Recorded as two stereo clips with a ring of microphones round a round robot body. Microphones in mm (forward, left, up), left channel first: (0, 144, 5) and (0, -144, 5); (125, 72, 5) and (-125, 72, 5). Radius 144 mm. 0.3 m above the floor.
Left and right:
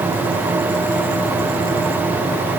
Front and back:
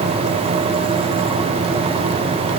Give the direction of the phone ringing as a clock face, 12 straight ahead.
I don't hear a phone ringing.